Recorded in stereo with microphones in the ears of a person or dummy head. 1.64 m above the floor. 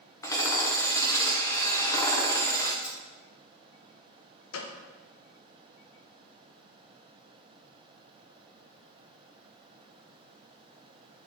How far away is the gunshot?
About 0.8 m.